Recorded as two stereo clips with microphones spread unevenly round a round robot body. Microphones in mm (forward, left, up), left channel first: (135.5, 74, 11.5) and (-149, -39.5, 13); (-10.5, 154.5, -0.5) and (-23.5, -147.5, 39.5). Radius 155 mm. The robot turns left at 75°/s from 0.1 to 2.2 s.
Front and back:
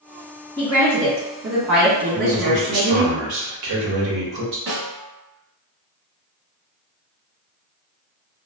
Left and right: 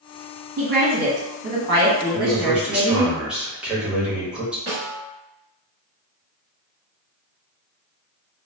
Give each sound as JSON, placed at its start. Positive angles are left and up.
{"t": 0.6, "sound": "a woman speaking", "azimuth_deg": -45, "distance_m": 1.6}
{"t": 2.1, "sound": "a man speaking", "azimuth_deg": -175, "distance_m": 1.0}
{"t": 4.7, "sound": "a snare drum", "azimuth_deg": -125, "distance_m": 1.2}